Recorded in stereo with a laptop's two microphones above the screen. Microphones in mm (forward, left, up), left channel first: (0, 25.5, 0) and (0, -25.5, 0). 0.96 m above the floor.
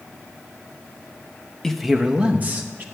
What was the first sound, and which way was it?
A man speaking, 10° left (ahead or behind).